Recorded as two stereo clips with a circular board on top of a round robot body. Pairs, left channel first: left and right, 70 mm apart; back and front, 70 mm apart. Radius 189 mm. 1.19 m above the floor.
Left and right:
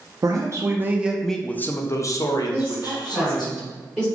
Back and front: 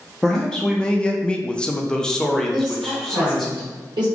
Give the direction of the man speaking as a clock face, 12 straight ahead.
3 o'clock.